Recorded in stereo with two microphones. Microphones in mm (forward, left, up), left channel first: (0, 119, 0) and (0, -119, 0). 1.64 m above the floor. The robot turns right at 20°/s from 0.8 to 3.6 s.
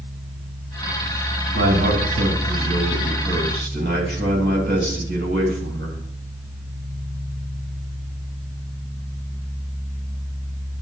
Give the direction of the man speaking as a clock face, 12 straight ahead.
3 o'clock.